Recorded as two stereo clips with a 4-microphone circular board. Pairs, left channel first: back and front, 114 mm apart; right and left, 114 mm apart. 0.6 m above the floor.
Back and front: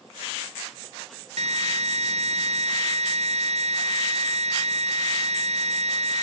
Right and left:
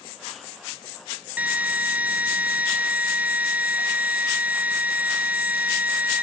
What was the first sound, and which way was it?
A drill, 15° left.